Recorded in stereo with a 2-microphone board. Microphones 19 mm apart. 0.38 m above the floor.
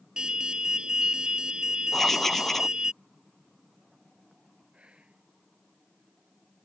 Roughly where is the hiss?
No hiss in this recording.